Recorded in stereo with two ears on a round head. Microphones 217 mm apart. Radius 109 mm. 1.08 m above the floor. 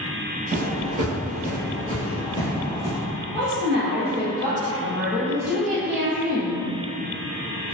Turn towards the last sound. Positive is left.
turn(degrees=-50)  # may be behind; listen again after turning